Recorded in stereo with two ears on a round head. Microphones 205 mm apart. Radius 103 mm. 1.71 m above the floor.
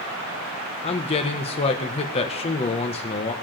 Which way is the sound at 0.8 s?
25° left (ahead or behind).